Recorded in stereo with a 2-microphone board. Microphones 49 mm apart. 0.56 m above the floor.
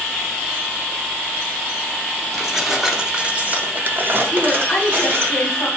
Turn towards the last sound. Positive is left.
turn(degrees=35)  # may be behind; listen again after turning